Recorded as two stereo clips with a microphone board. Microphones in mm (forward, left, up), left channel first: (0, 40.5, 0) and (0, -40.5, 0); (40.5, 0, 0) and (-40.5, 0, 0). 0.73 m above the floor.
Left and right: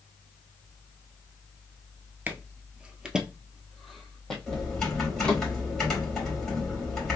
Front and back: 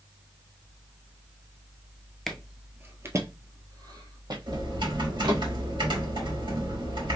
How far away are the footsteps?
About 0.7 m.